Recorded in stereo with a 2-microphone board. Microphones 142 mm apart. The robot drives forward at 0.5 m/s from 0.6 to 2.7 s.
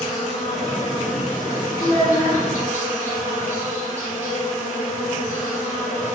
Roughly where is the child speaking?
Centre.